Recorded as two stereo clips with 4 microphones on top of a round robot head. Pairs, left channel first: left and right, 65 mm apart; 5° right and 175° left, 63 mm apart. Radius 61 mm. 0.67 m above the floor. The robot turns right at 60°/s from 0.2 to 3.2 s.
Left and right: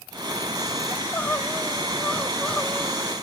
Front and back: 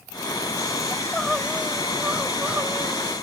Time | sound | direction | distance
0.9 | crying | 50° left | 0.8 m